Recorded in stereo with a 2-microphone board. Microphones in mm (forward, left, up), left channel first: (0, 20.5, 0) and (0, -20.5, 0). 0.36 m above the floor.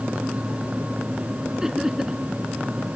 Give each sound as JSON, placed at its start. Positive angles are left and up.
{"t": 1.6, "sound": "laughter", "side_deg": -15}